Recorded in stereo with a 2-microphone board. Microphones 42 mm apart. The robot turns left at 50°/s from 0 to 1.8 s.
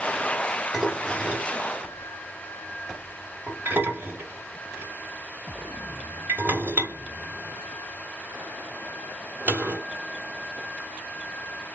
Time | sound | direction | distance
0.7 | dishes clattering | 5° right (ahead or behind) | 1.6 m